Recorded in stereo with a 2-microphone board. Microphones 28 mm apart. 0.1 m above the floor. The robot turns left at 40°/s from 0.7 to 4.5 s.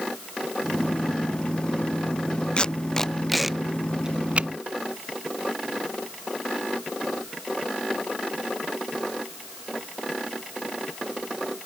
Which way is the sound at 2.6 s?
35° left (ahead or behind).